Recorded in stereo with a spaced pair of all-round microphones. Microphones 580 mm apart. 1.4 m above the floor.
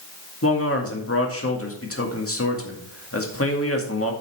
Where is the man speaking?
25° left (ahead or behind), 2.0 m.